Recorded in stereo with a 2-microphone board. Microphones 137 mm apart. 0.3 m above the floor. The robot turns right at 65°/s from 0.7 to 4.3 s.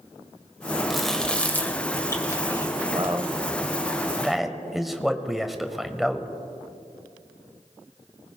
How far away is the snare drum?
I don't hear a snare drum.